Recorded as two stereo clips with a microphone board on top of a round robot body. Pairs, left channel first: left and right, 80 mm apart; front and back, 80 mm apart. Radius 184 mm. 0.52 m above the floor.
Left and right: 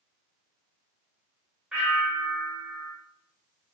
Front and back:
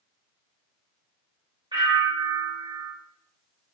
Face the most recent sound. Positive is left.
turn(degrees=-170)